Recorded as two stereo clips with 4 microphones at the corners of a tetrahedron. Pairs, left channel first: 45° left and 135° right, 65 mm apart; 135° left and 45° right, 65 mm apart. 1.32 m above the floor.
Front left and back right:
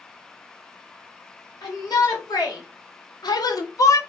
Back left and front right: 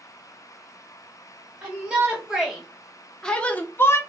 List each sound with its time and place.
1.6 s a shout: 25° left, 1.7 m; by 4.0 s 85° left, 0.8 m